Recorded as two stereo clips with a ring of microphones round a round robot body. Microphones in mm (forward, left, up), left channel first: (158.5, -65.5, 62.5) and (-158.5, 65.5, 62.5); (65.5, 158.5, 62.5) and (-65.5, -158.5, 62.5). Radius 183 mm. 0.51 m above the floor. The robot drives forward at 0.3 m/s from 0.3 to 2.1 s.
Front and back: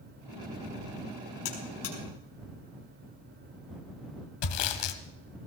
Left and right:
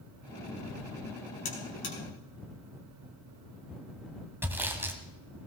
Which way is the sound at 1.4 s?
10° left.